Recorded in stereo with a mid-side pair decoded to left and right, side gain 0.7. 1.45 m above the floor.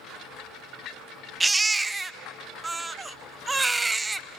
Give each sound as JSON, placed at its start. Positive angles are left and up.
{"t": 1.4, "sound": "a baby crying", "azimuth_deg": -15, "distance_m": 0.6}